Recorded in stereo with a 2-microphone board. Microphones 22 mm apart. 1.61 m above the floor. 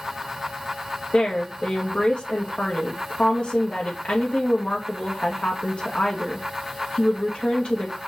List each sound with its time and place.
1.1 s a woman speaking: 60° left (ahead or behind), 2.5 m